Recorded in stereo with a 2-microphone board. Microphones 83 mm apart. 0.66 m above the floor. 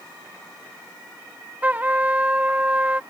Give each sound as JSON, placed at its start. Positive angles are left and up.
{"t": 1.6, "sound": "a trumpet", "side_deg": -20}